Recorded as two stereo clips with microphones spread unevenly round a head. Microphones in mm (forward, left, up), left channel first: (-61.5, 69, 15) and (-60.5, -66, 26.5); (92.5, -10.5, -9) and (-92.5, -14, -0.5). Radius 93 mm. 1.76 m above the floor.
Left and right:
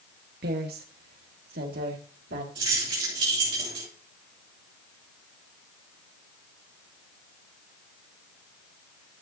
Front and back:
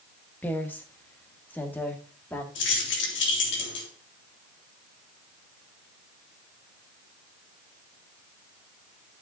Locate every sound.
0.4 s a woman speaking: 80° right, 1.6 m
2.5 s keys jangling: 25° right, 3.5 m